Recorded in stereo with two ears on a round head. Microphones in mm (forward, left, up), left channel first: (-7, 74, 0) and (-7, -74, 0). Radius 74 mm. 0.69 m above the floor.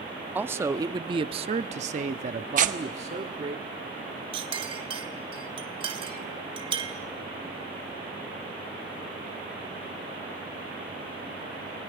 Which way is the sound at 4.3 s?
30° right (ahead or behind).